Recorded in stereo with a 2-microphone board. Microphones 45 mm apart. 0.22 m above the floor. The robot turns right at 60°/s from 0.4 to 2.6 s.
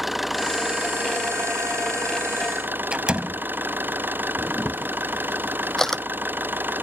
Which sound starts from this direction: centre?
A camera shutter, at 4.4 s.